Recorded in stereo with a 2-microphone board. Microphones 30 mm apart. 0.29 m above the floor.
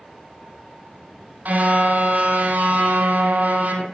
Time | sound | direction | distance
1.4 | a car horn | 70° right (ahead or behind) | 4 m